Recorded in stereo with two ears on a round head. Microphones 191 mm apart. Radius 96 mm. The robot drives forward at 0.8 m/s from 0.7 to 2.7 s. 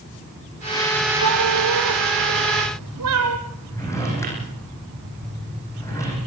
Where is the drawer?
15° left (ahead or behind), 7 m.